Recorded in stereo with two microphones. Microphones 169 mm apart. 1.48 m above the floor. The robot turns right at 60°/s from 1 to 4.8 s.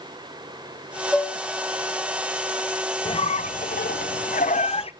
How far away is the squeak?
About 0.6 m.